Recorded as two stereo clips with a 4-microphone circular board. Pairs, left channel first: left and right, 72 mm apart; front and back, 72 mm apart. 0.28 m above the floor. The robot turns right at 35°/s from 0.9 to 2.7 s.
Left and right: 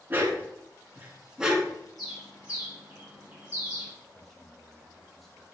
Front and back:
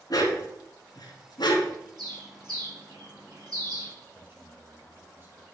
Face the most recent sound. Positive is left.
turn(degrees=175)